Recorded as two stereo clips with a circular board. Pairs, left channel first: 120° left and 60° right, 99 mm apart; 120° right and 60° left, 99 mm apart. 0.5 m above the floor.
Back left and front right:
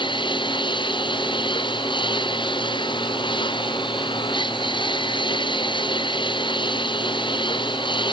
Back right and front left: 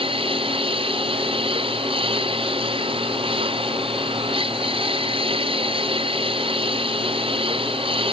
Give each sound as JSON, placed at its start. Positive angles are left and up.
{"t": 0.0, "sound": "a lawn mower", "azimuth_deg": 85}